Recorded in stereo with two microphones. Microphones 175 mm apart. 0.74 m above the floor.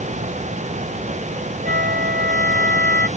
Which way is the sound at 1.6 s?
60° right (ahead or behind).